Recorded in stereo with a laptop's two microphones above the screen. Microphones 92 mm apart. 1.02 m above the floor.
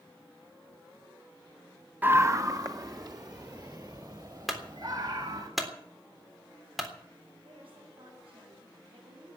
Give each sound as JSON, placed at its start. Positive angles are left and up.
{"t": 2.0, "sound": "a scream", "side_deg": -20, "distance_m": 0.5}
{"t": 4.5, "sound": "a clunk", "side_deg": 0, "distance_m": 3.5}
{"t": 7.5, "sound": "a woman speaking", "side_deg": -80, "distance_m": 8.0}